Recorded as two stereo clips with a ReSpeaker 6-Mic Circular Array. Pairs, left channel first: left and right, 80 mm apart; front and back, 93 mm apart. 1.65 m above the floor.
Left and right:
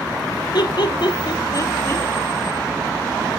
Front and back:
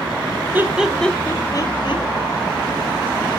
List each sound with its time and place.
0.5 s laughter: 110° left, 0.8 m; by 2.0 s 25° left, 0.9 m